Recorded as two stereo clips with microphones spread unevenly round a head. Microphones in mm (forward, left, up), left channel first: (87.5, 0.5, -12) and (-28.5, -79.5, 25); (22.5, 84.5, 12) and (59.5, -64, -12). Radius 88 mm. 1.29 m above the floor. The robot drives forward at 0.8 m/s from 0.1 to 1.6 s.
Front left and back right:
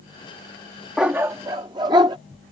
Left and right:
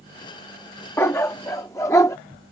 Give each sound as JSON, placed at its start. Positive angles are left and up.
{"t": 1.0, "sound": "a dog barking", "azimuth_deg": 155}